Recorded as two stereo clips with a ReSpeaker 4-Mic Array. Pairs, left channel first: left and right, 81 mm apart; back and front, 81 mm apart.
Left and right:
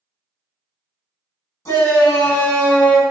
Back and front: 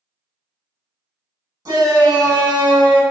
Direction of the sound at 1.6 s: 40° left.